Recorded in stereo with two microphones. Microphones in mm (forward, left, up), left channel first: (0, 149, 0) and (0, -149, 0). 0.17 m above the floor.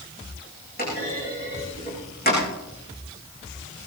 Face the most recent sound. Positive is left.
turn(degrees=30)  # may be behind; listen again after turning